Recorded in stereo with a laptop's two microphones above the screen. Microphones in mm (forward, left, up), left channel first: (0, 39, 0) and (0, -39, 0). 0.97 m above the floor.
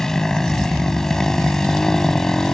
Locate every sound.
0.0 s a motorcycle: 5° left (ahead or behind)